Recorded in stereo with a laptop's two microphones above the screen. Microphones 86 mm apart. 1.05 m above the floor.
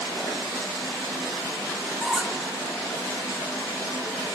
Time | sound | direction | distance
2.0 | a squeak | 5° right (ahead or behind) | 0.7 m